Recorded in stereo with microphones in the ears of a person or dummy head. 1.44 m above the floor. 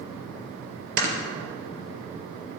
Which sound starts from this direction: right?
Snoring, at 1.0 s.